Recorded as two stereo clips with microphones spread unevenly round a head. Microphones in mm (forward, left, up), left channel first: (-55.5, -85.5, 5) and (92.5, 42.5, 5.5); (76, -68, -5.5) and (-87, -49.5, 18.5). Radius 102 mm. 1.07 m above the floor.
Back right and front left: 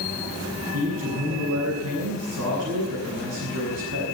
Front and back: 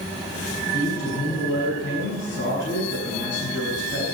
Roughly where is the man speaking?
Ahead left.